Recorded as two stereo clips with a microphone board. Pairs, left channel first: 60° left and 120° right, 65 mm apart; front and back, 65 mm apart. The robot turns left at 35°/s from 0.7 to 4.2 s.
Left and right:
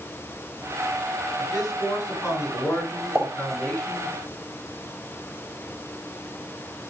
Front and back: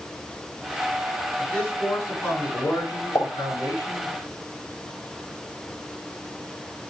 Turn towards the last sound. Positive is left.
turn(degrees=-75)